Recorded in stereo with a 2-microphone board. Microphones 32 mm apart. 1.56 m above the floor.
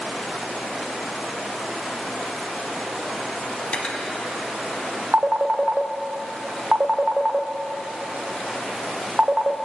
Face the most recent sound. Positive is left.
turn(degrees=-35)  # may be behind; listen again after turning